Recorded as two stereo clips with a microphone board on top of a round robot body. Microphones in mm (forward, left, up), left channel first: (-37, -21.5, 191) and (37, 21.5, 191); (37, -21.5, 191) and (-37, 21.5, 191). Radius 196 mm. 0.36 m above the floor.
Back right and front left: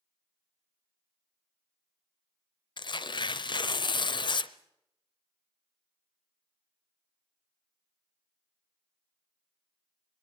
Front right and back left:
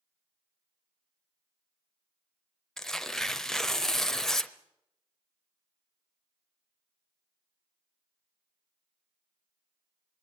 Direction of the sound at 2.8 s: 115° right.